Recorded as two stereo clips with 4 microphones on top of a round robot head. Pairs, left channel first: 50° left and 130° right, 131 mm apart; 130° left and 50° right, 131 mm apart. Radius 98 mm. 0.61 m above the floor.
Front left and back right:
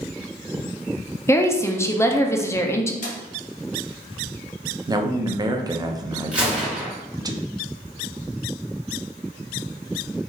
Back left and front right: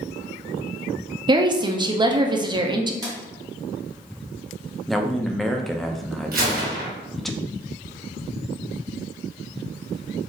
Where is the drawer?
20° left, 1.8 m.